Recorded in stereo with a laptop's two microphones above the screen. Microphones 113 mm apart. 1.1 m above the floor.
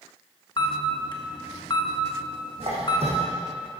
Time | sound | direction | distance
0.6 | a camera shutter | 40° left (ahead or behind) | 1.0 m
2.6 | a squeak | 65° right (ahead or behind) | 3.5 m